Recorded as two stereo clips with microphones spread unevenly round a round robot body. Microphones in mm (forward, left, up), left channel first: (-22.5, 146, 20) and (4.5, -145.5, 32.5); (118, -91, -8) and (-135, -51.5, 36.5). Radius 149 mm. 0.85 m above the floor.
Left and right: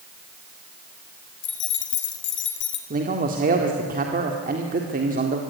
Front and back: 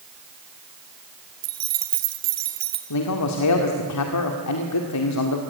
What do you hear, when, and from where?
1.4 s keys jangling: 150° left, 2.5 m
2.9 s a man speaking: 20° right, 1.9 m